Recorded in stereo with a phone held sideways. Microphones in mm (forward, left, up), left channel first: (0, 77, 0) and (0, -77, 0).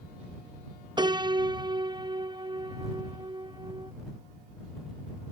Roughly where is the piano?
Right.